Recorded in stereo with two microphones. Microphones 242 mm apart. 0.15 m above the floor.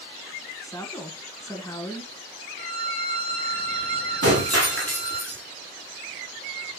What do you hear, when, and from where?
0.6 s a woman speaking: 15° left (ahead or behind), 1.4 m
2.6 s a violin: 20° left (ahead or behind), 1.8 m
4.2 s breaking glass: 75° right (ahead or behind), 4 m